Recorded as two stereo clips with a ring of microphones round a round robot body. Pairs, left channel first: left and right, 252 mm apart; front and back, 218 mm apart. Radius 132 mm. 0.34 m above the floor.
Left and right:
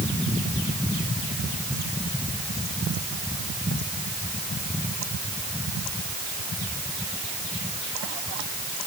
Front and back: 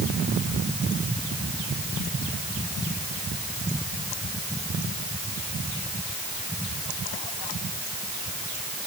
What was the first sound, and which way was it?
Only background noise.